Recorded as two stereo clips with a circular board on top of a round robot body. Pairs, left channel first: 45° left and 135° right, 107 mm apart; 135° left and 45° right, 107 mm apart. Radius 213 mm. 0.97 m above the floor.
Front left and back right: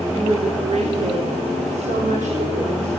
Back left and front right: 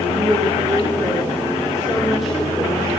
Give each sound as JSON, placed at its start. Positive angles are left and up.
{"t": 0.1, "sound": "a woman speaking", "azimuth_deg": -100, "distance_m": 3.5}